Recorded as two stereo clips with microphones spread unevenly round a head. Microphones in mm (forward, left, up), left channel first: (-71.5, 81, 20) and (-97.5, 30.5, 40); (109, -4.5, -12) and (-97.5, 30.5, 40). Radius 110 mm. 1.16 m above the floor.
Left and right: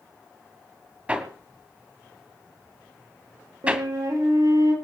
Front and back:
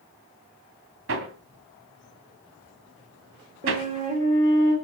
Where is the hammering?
175° right, 2 m.